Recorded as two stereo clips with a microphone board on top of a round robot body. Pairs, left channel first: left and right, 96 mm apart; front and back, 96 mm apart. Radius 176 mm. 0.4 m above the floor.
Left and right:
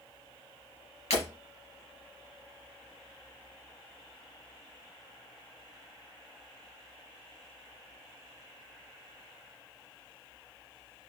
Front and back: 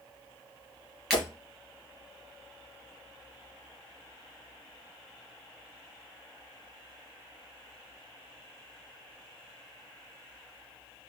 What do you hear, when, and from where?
1.1 s breaking glass: 90° left, 3.5 m